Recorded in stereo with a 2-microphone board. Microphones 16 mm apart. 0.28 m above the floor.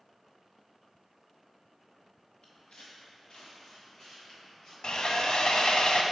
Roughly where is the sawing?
Left.